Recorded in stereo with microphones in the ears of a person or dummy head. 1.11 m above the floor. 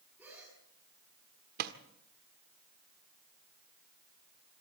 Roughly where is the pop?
Right.